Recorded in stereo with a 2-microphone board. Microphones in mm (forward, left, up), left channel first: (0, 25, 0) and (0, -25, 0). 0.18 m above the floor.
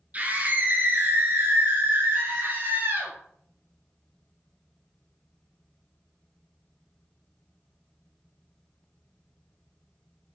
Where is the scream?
30° right (ahead or behind), 2 m; by 3.1 s 50° right (ahead or behind), 2.5 m.